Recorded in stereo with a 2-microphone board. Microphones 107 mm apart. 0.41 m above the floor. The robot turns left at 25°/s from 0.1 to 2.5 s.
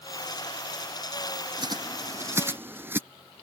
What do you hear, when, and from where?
1.6 s a bird: 40° right (ahead or behind); by 3.0 s 20° right (ahead or behind)